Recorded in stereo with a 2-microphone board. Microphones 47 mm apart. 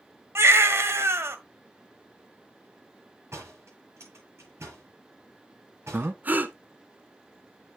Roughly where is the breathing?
Right.